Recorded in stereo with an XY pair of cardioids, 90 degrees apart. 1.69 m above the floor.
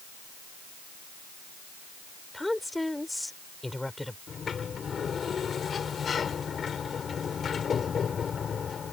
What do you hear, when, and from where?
2.3 s a woman speaking: 10° left
4.3 s a sliding door: 50° left